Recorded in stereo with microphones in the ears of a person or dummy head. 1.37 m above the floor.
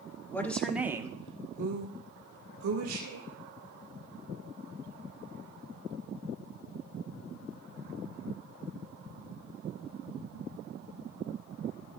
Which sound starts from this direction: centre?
A woman speaking, at 0.3 s.